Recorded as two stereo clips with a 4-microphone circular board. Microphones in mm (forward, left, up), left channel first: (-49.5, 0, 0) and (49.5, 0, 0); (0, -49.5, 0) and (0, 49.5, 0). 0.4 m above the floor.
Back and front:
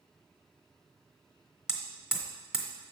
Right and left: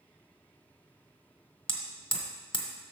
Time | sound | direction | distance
1.7 | hammering | 80° right | 1.2 m